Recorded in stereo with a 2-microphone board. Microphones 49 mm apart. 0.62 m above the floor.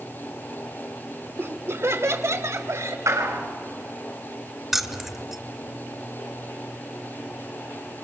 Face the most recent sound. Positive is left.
turn(degrees=-5)  # may be behind; listen again after turning